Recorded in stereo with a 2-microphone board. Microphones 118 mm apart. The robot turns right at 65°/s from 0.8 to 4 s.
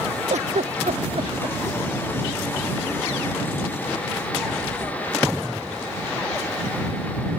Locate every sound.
0.3 s a giggle: 75° right (ahead or behind); by 1.6 s 35° right (ahead or behind)